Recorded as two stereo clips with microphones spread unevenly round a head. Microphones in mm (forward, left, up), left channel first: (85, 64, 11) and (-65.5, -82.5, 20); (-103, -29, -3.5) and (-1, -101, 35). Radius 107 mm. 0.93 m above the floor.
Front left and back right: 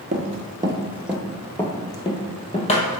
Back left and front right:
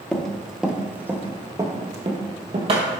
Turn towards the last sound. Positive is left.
turn(degrees=-10)